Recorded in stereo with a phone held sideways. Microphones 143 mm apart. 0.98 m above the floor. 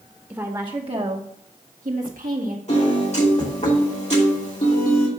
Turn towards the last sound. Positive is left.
turn(degrees=50)  # may be behind; listen again after turning